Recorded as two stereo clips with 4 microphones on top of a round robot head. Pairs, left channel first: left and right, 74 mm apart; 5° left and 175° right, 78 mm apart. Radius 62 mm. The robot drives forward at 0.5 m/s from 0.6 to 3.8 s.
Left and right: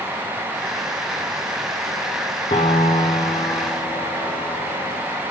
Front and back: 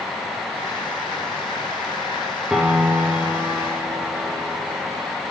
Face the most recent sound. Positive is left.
turn(degrees=125)